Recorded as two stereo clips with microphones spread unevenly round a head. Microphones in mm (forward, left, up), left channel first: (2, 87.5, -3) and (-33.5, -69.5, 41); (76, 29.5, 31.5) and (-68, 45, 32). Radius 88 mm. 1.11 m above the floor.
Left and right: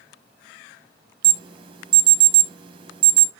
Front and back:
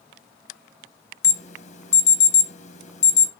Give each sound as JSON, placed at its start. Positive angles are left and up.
{"t": 1.2, "sound": "an alarm", "azimuth_deg": -35, "distance_m": 1.3}